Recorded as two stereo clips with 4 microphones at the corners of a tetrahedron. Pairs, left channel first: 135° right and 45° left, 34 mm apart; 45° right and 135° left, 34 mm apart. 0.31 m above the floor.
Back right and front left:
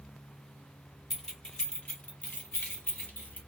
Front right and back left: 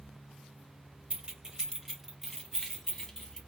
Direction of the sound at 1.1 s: 150° left.